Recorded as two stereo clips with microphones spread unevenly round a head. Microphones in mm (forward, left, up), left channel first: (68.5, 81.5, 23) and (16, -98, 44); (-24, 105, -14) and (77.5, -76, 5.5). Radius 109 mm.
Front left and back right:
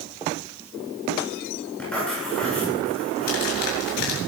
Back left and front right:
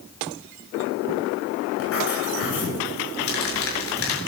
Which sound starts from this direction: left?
Crumpling, at 3.3 s.